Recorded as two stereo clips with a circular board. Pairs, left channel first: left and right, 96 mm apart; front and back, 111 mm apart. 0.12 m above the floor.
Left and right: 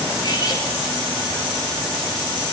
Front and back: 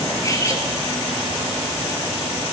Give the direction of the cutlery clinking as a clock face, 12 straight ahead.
10 o'clock.